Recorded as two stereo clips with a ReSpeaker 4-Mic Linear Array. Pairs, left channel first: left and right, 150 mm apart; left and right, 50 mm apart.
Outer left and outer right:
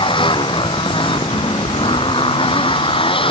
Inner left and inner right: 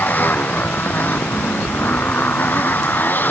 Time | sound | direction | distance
0.0 | a motorcycle | 35° left (ahead or behind) | ?